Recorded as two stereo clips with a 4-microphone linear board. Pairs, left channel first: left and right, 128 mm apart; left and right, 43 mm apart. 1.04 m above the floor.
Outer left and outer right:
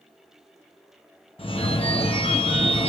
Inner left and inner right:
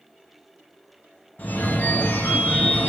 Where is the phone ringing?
45° left (ahead or behind), 1.0 m.